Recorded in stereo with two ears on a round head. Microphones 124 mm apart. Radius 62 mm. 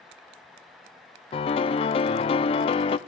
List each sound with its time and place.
1.3 s a piano: 40° left (ahead or behind), 0.5 m